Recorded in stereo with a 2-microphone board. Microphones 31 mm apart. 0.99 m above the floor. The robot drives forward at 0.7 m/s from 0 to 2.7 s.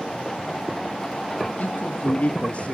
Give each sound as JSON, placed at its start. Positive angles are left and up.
{"t": 1.6, "sound": "a man speaking", "side_deg": 55, "distance_m": 1.5}